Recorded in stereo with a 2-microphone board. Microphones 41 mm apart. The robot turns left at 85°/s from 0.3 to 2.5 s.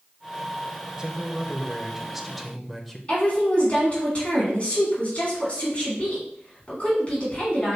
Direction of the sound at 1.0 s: 15° right (ahead or behind).